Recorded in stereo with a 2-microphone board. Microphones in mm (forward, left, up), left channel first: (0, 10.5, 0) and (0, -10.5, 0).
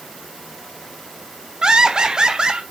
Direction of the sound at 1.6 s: 40° right (ahead or behind).